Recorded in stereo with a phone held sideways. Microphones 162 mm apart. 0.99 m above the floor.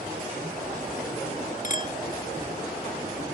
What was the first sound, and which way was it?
A clink, 50° left (ahead or behind).